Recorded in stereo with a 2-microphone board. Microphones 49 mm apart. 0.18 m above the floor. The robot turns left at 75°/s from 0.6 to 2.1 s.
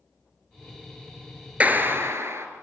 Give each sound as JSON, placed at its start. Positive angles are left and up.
{"t": 1.6, "sound": "a clap", "azimuth_deg": -30, "distance_m": 2.5}